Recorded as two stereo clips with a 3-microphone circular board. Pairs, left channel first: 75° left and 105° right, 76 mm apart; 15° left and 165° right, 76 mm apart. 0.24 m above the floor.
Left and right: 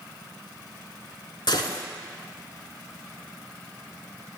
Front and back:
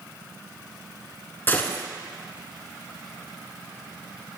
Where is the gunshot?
80° left, 0.8 m.